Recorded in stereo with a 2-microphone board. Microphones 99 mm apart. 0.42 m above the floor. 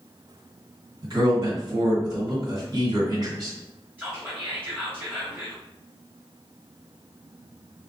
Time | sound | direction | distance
1.0 | a man speaking | 40° right (ahead or behind) | 1.7 m
4.0 | whispering | 20° right (ahead or behind) | 0.8 m